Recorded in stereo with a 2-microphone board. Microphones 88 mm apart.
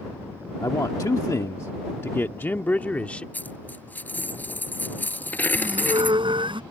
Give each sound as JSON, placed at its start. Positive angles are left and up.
{"t": 0.6, "sound": "a man speaking", "side_deg": 45}
{"t": 3.3, "sound": "a dropped coin", "side_deg": 20}
{"t": 5.5, "sound": "a squeak", "side_deg": -80}